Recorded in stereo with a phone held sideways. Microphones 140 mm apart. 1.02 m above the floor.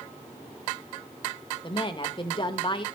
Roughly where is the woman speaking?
Left.